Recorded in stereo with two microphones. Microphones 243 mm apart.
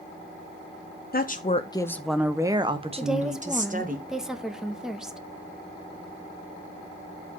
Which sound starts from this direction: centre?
A woman speaking, at 3.0 s.